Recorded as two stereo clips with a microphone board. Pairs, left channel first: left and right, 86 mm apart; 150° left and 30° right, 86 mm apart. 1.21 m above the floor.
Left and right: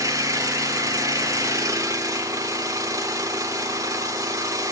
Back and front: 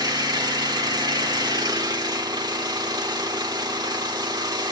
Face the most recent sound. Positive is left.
turn(degrees=-50)